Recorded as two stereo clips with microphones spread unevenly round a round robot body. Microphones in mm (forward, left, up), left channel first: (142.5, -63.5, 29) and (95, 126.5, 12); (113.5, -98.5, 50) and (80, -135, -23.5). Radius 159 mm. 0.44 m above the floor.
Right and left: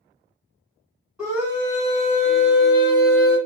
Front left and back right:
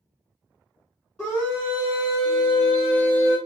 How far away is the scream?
About 1.4 m.